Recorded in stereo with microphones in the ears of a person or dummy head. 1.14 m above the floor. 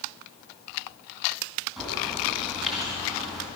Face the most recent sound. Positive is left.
turn(degrees=0)  # may be behind; listen again after turning